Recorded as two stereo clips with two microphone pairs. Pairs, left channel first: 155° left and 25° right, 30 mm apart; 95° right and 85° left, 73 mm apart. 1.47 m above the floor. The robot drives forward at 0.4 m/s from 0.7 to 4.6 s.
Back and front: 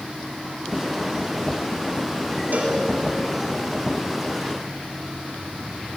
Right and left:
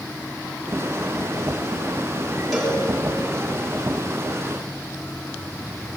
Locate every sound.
2.5 s a cowbell: 10° right, 7.5 m